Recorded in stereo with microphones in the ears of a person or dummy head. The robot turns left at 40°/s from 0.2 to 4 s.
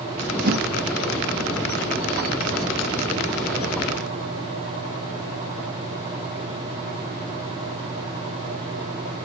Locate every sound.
0.4 s a whoosh: 50° right (ahead or behind), 2.5 m; by 0.7 s 60° right (ahead or behind), 2.5 m